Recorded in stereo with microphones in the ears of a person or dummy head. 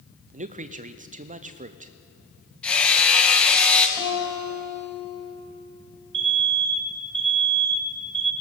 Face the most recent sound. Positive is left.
turn(degrees=-60)  # may be behind; listen again after turning